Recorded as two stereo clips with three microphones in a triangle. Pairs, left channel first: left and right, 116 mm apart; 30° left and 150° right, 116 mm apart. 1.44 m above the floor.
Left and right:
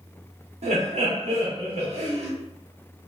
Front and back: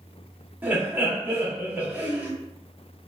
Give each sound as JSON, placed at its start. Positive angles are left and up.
{"t": 0.6, "sound": "laughter", "azimuth_deg": -75, "distance_m": 1.2}